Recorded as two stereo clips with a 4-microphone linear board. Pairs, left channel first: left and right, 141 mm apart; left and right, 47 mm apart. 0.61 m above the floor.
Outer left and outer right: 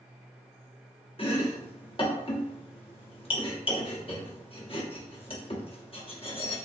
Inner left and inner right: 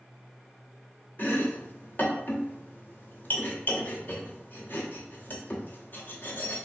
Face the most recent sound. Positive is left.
turn(degrees=40)  # may be behind; listen again after turning